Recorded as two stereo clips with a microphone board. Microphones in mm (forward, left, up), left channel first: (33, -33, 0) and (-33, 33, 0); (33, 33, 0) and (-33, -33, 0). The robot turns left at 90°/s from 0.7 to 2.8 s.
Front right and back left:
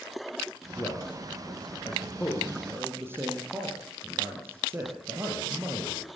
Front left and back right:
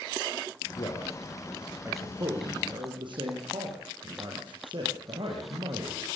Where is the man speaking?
25° left, 4.5 m; by 6.1 s 160° right, 4.5 m.